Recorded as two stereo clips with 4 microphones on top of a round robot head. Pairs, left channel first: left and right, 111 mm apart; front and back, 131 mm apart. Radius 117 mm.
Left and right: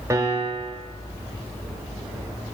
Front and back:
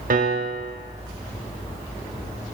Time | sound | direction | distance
0.1 | a piano | 160° right | 0.7 m